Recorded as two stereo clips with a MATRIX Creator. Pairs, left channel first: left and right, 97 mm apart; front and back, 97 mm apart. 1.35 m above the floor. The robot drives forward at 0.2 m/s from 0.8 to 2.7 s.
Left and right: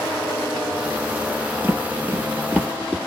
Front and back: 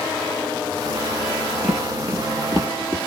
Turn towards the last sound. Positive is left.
turn(degrees=-160)